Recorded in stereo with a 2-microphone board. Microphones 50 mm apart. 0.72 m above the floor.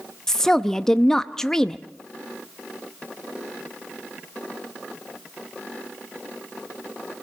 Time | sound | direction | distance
0.3 | a woman speaking | 10° left (ahead or behind) | 0.5 m